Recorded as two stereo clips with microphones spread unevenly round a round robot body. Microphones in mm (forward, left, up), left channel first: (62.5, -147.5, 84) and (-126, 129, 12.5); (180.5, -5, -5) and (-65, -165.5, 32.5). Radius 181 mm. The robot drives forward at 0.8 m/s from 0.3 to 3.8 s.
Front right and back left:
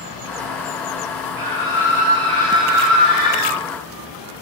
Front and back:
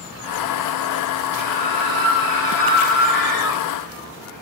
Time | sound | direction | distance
1.4 | a scream | 105° left | 4 m